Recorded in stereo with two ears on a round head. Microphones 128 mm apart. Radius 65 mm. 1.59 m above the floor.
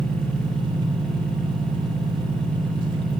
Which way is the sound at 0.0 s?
30° right (ahead or behind).